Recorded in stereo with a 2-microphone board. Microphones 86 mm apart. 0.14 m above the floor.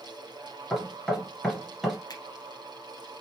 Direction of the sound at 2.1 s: 50° left (ahead or behind).